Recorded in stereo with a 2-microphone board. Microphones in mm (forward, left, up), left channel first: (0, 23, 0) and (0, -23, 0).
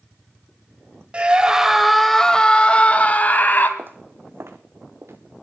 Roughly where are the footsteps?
Right.